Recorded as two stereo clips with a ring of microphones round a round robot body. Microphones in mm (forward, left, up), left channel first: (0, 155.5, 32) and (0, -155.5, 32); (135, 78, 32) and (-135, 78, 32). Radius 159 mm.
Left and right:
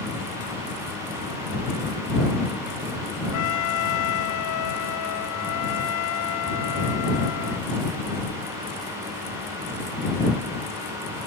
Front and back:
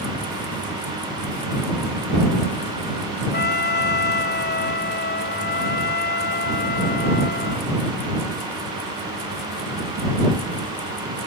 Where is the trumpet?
55° left.